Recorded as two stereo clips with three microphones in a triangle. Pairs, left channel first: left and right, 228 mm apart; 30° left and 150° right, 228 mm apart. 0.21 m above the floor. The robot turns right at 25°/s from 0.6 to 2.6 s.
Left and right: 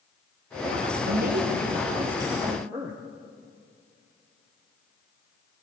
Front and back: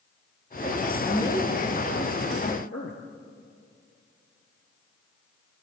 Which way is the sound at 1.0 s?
50° right.